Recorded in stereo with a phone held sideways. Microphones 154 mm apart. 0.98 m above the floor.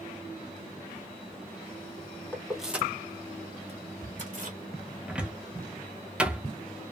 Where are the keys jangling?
10° left (ahead or behind), 0.9 m; by 4.6 s 60° right (ahead or behind), 1.3 m.